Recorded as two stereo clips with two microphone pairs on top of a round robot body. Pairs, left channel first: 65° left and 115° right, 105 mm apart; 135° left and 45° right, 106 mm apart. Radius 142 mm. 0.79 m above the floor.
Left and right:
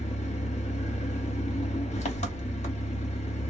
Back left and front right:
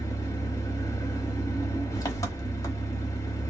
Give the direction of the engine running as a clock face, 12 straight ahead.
9 o'clock.